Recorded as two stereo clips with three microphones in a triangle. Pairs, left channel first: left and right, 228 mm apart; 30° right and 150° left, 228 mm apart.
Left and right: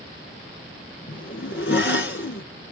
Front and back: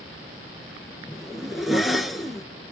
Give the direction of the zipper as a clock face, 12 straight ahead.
10 o'clock.